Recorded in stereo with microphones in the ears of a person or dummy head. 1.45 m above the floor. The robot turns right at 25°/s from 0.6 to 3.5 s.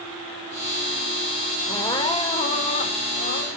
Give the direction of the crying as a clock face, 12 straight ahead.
11 o'clock.